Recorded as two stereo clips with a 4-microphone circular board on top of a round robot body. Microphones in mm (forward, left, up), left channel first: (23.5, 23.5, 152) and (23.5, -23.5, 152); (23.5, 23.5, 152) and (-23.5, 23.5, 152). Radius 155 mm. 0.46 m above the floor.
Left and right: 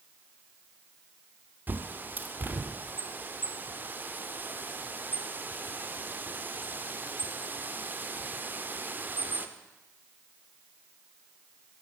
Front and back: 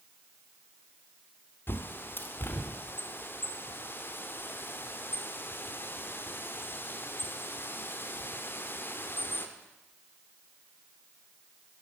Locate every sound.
1.7 s a bird: 40° right, 0.9 m